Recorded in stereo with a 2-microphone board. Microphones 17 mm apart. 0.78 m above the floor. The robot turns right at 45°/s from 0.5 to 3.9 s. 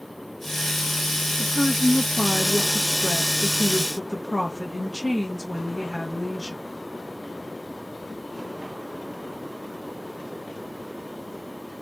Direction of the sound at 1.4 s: 45° left.